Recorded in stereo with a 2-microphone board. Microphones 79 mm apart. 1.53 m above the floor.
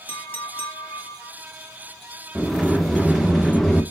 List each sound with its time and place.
0.1 s a clink: 25° left (ahead or behind), 1.6 m
2.4 s a sliding door: 5° left (ahead or behind), 0.8 m